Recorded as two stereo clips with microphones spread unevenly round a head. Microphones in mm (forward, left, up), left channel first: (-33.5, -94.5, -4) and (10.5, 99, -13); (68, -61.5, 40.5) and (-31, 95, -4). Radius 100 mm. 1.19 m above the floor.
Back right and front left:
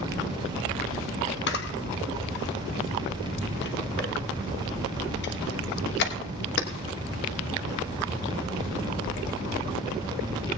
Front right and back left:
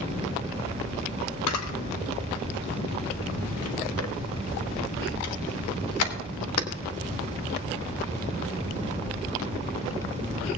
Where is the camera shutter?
65° right, 1.2 m.